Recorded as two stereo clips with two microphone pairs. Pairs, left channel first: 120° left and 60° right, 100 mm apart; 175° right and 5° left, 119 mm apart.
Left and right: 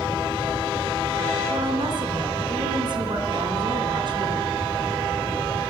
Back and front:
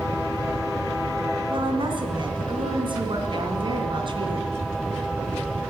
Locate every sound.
1.5 s a woman speaking: 35° right, 2.5 m